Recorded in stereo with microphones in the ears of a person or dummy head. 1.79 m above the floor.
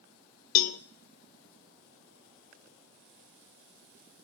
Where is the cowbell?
50° left (ahead or behind), 0.5 m.